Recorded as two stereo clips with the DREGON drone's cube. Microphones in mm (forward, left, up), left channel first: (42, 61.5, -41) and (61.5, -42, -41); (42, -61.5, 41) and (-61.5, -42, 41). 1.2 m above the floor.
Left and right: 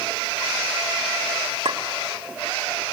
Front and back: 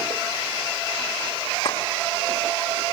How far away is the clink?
About 2 m.